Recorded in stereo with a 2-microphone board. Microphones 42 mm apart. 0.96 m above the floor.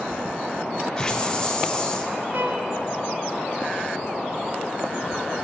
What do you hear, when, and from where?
1.0 s a hiss: 20° left (ahead or behind), 0.7 m
2.3 s a violin: 55° right (ahead or behind), 1.8 m